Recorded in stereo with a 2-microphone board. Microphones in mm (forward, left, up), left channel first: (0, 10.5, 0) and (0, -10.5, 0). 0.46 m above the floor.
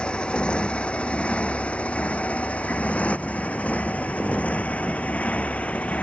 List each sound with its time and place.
0.0 s a motorcycle: 45° left (ahead or behind); by 6.0 s 80° left